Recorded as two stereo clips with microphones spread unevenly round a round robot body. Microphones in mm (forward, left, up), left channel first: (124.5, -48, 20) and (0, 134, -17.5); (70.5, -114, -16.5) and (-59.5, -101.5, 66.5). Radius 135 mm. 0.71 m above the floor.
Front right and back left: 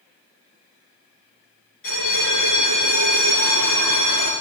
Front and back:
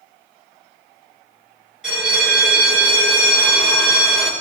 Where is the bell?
100° right, 6.5 m.